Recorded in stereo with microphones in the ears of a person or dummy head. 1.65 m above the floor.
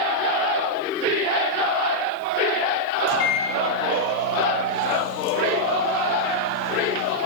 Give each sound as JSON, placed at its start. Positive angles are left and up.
{"t": 3.1, "sound": "a microwave", "side_deg": 75, "distance_m": 2.5}